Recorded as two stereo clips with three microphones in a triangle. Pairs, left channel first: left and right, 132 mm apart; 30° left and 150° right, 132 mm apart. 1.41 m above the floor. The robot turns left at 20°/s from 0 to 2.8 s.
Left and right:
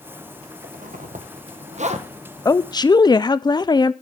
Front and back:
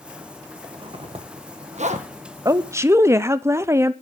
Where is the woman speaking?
150° left, 0.5 m; by 3.9 s 145° left, 0.5 m.